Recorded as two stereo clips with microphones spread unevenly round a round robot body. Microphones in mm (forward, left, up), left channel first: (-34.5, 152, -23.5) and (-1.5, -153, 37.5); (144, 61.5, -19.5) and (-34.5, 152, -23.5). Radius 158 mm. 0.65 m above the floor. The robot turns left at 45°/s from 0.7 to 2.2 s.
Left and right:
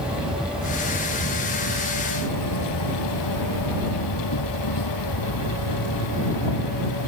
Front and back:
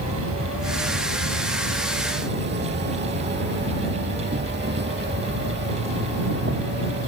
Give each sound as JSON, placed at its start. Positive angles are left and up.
{"t": 0.0, "sound": "an insect", "azimuth_deg": -170}